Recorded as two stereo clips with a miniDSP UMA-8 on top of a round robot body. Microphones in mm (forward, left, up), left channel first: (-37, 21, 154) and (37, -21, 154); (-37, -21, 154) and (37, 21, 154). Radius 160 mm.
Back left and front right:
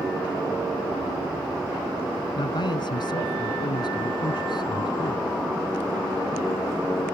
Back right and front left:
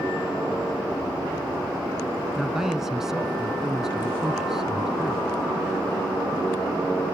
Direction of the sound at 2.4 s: 115° left.